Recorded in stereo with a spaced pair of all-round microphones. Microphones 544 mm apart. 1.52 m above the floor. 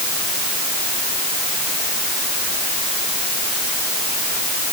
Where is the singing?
No singing in this recording.